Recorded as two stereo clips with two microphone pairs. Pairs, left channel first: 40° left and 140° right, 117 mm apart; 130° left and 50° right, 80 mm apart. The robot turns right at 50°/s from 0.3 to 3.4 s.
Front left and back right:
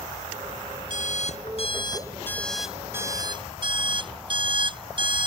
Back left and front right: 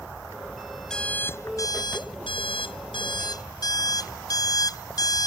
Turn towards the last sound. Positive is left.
turn(degrees=175)